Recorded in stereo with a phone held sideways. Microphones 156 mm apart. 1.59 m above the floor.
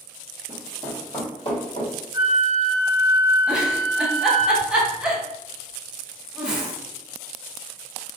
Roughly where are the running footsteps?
Left.